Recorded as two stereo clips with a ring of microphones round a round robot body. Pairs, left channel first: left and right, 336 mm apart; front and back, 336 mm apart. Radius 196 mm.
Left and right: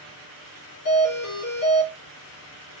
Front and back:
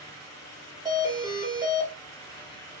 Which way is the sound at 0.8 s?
100° left.